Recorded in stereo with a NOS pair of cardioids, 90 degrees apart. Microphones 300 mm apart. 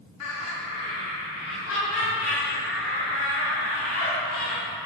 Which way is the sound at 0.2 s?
65° left.